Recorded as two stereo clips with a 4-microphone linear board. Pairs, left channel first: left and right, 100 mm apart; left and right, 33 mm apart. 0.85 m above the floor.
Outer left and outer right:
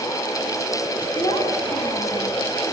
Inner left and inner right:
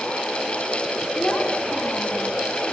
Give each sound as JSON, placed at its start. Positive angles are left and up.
{"t": 1.1, "sound": "a child speaking", "side_deg": 50, "distance_m": 6.0}